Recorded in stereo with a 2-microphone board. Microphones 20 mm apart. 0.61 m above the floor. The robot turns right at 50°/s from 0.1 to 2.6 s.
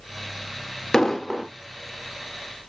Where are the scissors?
I don't hear scissors.